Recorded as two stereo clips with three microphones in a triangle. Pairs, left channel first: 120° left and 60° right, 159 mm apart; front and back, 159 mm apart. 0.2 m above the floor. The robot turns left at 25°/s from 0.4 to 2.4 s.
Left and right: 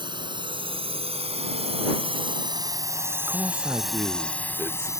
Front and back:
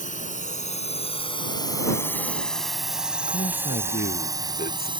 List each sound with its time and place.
0.0 s a drone: 10° right; by 5.0 s 170° left
3.3 s a man speaking: 15° left